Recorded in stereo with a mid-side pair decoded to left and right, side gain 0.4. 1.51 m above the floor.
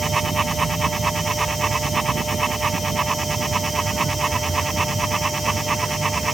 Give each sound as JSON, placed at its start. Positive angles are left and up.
{"t": 0.0, "sound": "a fan", "azimuth_deg": -25}